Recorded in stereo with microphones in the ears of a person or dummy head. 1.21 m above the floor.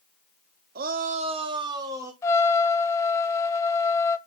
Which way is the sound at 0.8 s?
45° right (ahead or behind).